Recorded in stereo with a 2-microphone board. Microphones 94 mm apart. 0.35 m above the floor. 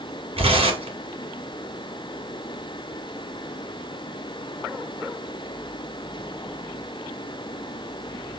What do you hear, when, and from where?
0.4 s tearing paper: 80° right, 2 m